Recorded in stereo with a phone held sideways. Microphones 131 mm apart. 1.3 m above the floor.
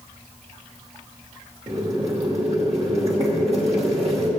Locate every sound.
1.7 s boiling: 50° right (ahead or behind), 2.5 m